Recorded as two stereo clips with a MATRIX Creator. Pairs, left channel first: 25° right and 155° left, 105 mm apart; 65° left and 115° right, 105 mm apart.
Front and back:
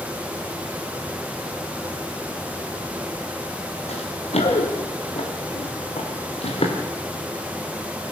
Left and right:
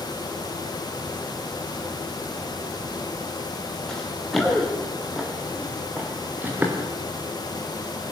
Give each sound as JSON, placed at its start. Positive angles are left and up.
{"t": 3.9, "sound": "running footsteps", "azimuth_deg": -15, "distance_m": 5.0}